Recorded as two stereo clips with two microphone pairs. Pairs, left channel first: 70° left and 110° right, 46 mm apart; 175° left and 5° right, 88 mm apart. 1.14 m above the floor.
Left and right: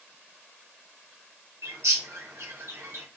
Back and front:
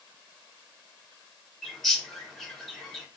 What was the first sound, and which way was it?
A bird, 95° right.